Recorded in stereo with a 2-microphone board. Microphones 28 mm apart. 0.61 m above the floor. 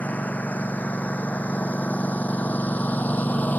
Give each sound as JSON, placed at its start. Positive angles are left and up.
{"t": 0.0, "sound": "a lawn mower", "side_deg": 65}